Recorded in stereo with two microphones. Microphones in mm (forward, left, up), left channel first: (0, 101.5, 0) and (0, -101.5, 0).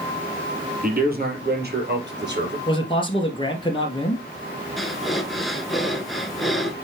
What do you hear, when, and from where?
0.8 s a man speaking: 45° right (ahead or behind), 3.5 m; by 2.6 s 60° right (ahead or behind), 3.5 m
2.7 s a man speaking: 25° left (ahead or behind), 2.0 m
4.8 s breathing: centre (ahead or behind), 1.1 m